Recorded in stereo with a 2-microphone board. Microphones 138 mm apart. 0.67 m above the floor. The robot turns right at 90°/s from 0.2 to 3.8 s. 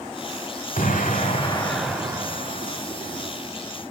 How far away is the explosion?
About 1.7 m.